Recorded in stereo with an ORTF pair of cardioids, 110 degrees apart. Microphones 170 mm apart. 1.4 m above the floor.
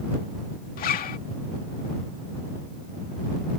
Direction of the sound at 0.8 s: 60° left.